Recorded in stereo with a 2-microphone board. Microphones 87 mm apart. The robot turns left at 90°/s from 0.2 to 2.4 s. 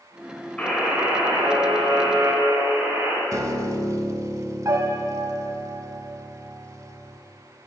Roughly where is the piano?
Right.